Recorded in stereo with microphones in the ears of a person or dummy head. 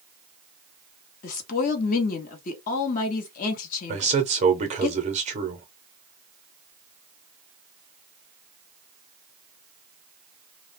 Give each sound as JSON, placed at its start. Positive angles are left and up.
{"t": 1.2, "sound": "a woman speaking", "side_deg": 45, "distance_m": 0.9}
{"t": 3.9, "sound": "a man speaking", "side_deg": -35, "distance_m": 0.6}